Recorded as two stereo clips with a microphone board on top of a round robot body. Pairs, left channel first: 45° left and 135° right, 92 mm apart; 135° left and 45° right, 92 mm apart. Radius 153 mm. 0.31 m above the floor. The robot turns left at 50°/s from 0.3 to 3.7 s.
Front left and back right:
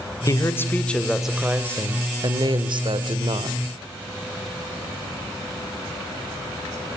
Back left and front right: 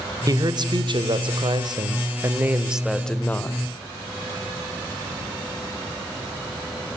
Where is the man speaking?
5° right, 2.5 m; by 3.6 s 170° right, 2.5 m.